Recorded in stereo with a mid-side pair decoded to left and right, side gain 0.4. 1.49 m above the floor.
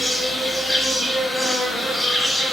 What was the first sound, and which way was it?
An insect, 15° left.